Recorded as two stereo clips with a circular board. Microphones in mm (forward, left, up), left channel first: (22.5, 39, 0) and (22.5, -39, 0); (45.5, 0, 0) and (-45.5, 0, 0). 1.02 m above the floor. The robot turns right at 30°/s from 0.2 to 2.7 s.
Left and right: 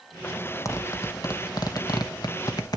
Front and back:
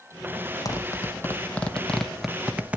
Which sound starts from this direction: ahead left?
A zipper, at 0.7 s.